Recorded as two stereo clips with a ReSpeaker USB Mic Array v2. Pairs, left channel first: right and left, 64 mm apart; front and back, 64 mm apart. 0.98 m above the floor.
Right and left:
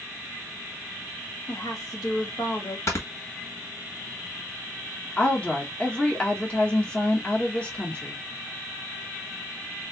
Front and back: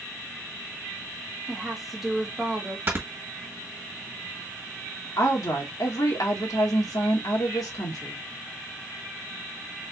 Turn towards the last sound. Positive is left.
turn(degrees=-20)